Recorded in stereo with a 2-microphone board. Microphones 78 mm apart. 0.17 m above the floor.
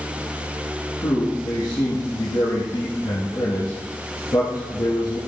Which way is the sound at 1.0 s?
60° left (ahead or behind).